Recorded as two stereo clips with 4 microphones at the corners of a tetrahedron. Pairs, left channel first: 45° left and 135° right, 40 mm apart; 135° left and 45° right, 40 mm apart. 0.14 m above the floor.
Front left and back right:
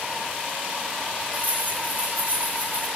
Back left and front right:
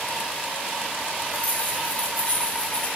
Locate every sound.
1.3 s keys jangling: 175° right, 5.5 m; by 2.9 s 170° right, 7 m